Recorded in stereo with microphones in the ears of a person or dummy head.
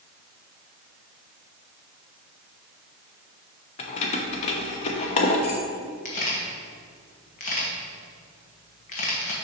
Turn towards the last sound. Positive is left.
turn(degrees=40)  # may be behind; listen again after turning